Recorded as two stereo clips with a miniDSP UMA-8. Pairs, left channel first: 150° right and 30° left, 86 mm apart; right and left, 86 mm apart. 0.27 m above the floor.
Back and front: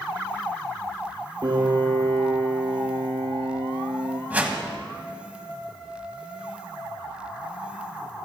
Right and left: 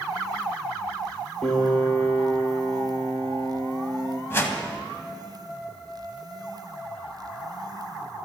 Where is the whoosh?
40° right, 1.6 m.